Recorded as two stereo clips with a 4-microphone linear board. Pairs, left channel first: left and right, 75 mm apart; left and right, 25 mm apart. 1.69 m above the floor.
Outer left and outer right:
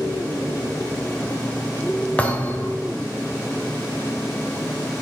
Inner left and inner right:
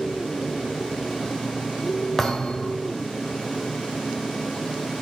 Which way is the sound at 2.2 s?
20° left (ahead or behind).